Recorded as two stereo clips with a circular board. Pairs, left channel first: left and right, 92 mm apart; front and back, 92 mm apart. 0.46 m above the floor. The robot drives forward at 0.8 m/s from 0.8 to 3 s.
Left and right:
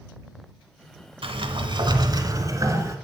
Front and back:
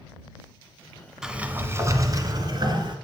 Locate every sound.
1.2 s a sliding door: 95° right, 0.9 m; by 3.0 s 150° right, 1.7 m